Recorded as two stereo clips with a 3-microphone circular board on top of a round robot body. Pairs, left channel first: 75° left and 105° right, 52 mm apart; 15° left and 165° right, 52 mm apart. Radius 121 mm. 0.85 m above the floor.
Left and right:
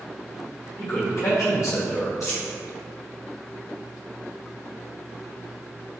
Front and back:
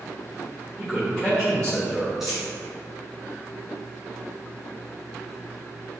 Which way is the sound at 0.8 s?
95° left.